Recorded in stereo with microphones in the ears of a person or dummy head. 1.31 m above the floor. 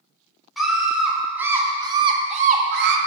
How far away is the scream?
About 3.5 m.